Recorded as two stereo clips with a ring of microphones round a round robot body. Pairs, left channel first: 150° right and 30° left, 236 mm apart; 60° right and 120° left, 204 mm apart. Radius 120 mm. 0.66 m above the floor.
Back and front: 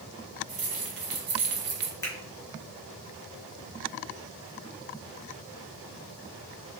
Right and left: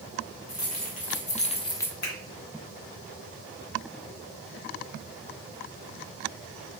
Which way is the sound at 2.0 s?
75° right.